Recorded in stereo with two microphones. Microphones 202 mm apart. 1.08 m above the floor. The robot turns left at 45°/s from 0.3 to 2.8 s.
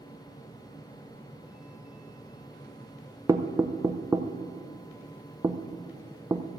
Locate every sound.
3.3 s knocking: 15° right (ahead or behind), 0.5 m